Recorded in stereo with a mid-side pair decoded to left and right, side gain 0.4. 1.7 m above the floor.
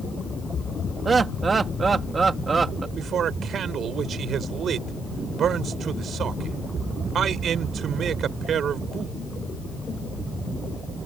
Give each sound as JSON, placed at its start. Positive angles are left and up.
{"t": 1.1, "sound": "laughter", "azimuth_deg": -40}
{"t": 3.0, "sound": "a man speaking", "azimuth_deg": -65}